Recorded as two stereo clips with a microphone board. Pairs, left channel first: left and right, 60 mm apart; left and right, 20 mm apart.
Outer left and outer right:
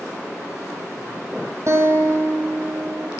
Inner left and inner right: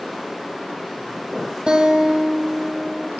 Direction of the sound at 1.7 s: 55° right (ahead or behind).